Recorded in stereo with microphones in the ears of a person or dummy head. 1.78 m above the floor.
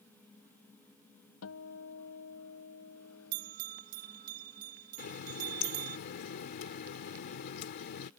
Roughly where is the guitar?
Left.